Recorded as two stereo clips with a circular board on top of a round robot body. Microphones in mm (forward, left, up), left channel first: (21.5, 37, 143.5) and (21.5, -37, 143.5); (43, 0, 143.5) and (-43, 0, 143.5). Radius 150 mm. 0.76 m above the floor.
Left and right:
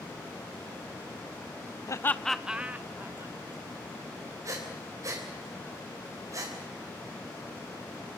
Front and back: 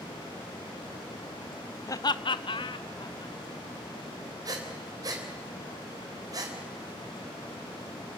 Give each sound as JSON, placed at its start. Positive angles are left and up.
{"t": 1.9, "sound": "laughter", "azimuth_deg": 50, "distance_m": 0.8}
{"t": 4.5, "sound": "breathing", "azimuth_deg": -135, "distance_m": 3.5}